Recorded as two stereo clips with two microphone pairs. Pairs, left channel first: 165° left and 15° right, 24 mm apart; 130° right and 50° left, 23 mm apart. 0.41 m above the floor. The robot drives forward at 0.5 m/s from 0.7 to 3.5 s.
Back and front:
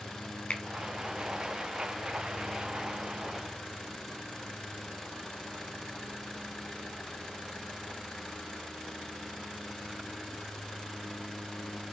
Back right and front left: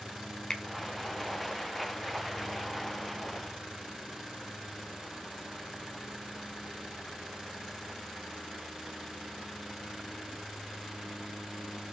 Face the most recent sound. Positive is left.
turn(degrees=180)